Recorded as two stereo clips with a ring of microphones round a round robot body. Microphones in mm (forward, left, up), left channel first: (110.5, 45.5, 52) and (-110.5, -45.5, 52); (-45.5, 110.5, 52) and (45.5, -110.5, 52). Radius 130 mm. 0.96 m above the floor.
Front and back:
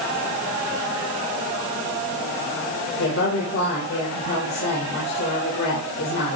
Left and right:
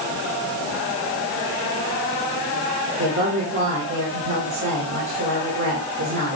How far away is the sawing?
I don't hear sawing.